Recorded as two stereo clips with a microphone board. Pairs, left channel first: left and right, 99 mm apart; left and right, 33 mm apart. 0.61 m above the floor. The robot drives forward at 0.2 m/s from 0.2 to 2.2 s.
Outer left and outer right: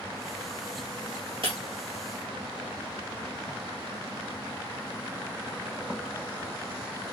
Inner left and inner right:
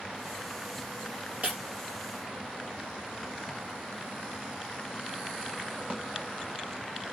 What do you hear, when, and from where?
1.4 s breaking glass: 50° right (ahead or behind), 1.7 m